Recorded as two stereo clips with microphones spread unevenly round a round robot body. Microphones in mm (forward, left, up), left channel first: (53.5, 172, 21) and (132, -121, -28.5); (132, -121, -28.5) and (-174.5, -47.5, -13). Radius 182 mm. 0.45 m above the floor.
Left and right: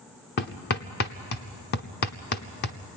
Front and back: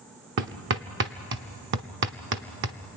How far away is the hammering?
About 0.8 m.